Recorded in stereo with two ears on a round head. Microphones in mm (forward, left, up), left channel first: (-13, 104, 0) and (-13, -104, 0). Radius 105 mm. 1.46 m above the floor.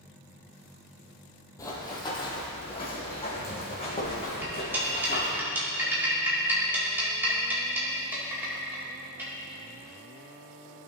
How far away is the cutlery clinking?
About 2.5 m.